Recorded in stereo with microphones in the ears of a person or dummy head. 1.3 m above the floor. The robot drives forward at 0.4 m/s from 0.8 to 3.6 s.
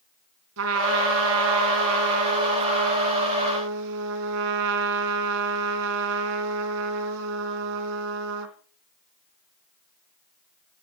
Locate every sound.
0.6 s a trumpet: 70° right (ahead or behind), 3 m; by 8.6 s 65° right (ahead or behind), 3 m